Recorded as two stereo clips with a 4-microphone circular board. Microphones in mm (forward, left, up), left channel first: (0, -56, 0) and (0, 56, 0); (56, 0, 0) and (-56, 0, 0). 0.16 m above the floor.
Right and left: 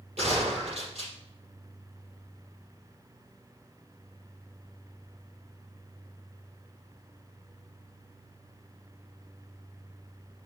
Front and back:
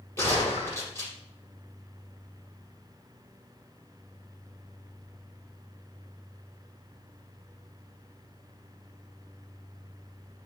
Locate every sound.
0.2 s a gunshot: 65° left, 5 m